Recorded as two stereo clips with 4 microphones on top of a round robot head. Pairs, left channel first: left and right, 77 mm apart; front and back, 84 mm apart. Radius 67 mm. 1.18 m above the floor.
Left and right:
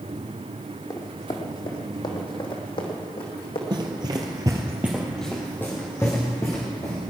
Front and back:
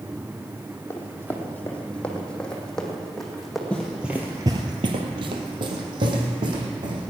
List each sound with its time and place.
0.9 s running footsteps: 60° left, 2 m; by 3.6 s 90° left, 3 m
3.7 s running footsteps: 80° right, 1.7 m; by 7.0 s 155° left, 4 m